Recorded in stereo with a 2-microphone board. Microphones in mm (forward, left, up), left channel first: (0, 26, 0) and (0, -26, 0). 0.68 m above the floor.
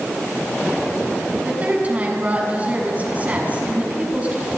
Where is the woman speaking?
30° right (ahead or behind), 7 m.